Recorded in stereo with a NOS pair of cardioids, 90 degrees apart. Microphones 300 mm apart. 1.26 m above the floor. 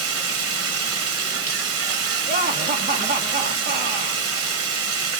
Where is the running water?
50° right, 1.1 m.